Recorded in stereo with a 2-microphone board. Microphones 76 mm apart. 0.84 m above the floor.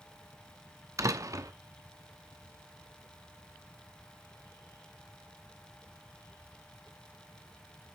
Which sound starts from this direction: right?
A door slam, at 1.0 s.